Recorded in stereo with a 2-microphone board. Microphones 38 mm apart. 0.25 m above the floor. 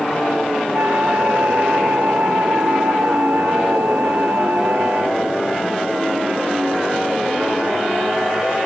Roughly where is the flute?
Right.